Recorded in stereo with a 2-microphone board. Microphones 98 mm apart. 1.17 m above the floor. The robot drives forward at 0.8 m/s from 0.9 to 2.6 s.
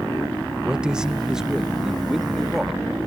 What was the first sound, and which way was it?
A man speaking, 10° right (ahead or behind).